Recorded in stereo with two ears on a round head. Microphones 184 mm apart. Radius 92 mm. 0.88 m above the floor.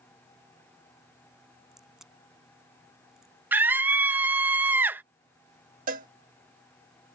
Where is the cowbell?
40° right (ahead or behind).